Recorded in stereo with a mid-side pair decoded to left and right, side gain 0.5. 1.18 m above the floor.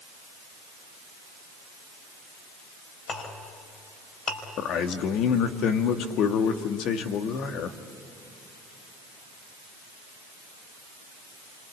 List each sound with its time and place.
3.1 s a clink: 50° left, 4.5 m
4.6 s a man speaking: 70° left, 1.7 m